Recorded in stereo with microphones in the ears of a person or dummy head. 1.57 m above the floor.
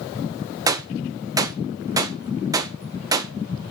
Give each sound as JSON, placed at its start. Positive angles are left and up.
{"t": 0.7, "sound": "a gunshot", "side_deg": -15, "distance_m": 1.5}